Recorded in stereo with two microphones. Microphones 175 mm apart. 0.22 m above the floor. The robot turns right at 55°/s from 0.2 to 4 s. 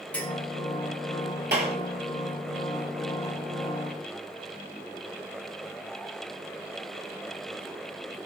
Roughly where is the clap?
Right.